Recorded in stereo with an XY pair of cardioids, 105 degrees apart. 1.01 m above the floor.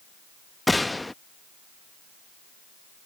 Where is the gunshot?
10° left.